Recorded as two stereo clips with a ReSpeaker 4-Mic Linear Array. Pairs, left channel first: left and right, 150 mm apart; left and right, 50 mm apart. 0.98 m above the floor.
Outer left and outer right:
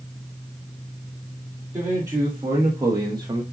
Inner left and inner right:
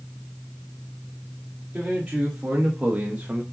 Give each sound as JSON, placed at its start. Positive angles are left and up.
{"t": 1.7, "sound": "a man speaking", "side_deg": -20, "distance_m": 2.0}